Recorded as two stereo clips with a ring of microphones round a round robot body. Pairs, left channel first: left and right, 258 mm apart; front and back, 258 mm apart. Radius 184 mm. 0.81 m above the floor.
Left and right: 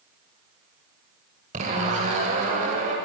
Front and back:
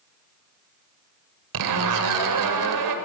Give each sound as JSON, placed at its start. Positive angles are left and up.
{"t": 1.5, "sound": "a zipper", "azimuth_deg": -165, "distance_m": 2.0}